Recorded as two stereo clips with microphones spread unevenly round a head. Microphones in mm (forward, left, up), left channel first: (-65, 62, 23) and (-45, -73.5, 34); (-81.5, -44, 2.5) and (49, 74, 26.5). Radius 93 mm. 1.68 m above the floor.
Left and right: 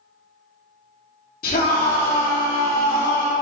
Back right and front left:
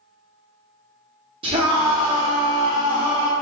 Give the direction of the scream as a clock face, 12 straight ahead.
9 o'clock.